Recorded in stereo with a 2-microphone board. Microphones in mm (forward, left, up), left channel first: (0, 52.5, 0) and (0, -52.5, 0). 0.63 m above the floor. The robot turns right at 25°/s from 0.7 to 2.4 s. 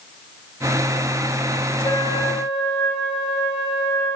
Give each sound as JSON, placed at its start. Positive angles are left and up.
{"t": 1.8, "sound": "a flute", "side_deg": 45, "distance_m": 6.0}